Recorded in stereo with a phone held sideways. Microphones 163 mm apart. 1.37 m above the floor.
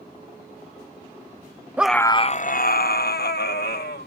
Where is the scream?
10° right (ahead or behind); by 4.1 s 80° left.